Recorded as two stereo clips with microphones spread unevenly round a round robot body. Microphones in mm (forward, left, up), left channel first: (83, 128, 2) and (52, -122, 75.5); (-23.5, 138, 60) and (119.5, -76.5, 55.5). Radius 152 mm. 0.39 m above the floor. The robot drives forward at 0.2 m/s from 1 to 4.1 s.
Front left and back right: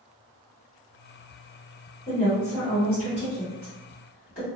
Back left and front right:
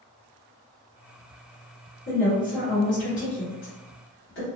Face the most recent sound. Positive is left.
turn(degrees=115)